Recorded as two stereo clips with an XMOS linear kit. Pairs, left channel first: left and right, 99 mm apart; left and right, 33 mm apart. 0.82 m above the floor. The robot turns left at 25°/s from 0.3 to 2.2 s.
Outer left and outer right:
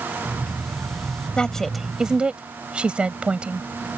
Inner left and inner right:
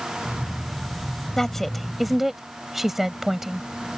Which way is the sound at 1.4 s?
10° left (ahead or behind).